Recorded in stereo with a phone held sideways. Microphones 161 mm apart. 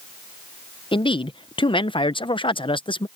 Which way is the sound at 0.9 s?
30° left (ahead or behind).